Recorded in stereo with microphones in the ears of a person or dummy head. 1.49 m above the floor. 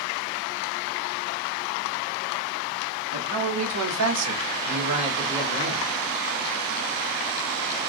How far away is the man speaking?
About 1.0 m.